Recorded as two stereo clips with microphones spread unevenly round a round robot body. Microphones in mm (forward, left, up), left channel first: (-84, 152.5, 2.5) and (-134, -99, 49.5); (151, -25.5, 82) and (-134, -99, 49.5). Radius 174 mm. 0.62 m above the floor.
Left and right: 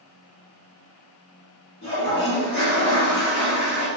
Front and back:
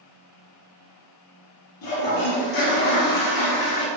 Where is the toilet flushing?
10° left, 1.0 m.